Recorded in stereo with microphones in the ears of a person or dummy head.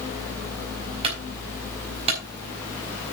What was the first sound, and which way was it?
A clunk, 30° right (ahead or behind).